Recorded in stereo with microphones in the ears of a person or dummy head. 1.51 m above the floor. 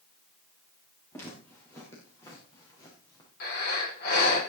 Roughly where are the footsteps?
Centre.